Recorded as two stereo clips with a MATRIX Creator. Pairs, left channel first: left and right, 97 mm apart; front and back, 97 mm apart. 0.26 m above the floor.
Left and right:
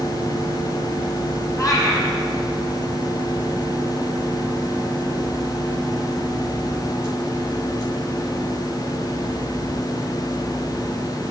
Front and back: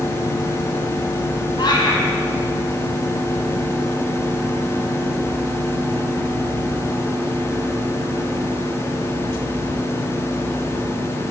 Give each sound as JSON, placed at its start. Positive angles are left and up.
{"t": 1.6, "sound": "a cat meowing", "azimuth_deg": 40, "distance_m": 2.0}